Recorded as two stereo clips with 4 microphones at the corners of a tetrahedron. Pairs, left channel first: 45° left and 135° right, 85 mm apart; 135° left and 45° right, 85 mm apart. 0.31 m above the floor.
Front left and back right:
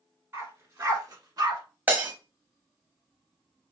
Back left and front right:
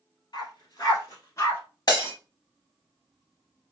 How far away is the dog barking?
About 1.7 m.